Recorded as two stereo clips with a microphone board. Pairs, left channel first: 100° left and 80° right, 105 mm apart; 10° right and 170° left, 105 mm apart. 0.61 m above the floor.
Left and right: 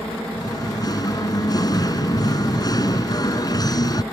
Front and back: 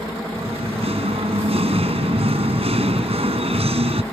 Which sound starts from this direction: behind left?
Singing, at 0.4 s.